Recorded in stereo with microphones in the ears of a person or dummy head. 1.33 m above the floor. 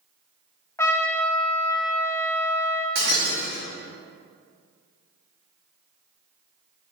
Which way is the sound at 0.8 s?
20° left (ahead or behind).